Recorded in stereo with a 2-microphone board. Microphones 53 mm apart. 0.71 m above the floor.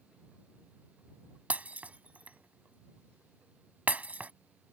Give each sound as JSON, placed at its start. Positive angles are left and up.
{"t": 1.5, "sound": "breaking glass", "side_deg": -30}